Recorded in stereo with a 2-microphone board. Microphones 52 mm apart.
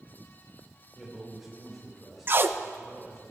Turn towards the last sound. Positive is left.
turn(degrees=-40)  # may be behind; listen again after turning